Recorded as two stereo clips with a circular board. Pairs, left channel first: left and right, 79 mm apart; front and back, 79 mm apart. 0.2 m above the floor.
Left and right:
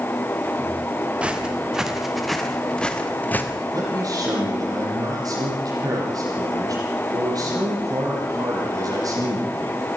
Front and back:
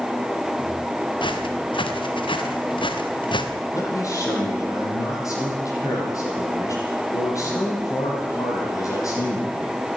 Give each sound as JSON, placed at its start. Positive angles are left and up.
{"t": 1.2, "sound": "footsteps", "azimuth_deg": -15, "distance_m": 3.0}
{"t": 3.7, "sound": "a man speaking", "azimuth_deg": -45, "distance_m": 8.0}